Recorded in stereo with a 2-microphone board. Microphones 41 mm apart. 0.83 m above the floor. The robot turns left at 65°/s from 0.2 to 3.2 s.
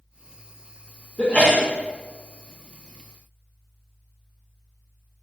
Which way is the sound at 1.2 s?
150° left.